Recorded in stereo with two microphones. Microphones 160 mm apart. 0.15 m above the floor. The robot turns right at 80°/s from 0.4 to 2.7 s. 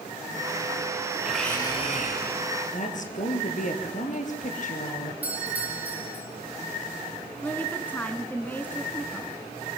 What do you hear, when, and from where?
1.2 s a blender: 5° right, 4.5 m; by 2.4 s 85° left, 4.5 m
2.7 s a woman speaking: 55° left (ahead or behind), 3.5 m
5.2 s a doorbell: 10° right (ahead or behind), 6.5 m
7.4 s a woman speaking: 10° left (ahead or behind), 1.5 m